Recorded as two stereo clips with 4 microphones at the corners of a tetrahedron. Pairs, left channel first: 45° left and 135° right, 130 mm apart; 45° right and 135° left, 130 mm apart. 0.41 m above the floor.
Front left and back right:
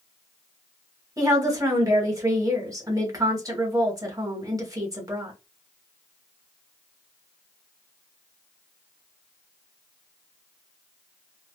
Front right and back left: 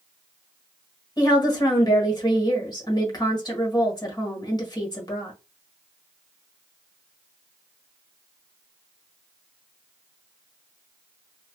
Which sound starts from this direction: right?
A woman speaking, at 1.2 s.